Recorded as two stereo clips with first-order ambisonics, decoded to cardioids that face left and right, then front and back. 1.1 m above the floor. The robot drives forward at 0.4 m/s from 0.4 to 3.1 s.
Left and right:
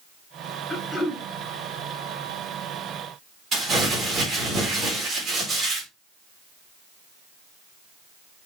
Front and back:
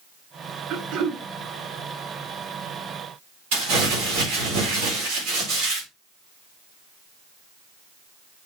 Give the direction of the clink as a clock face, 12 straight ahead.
No clink in this recording.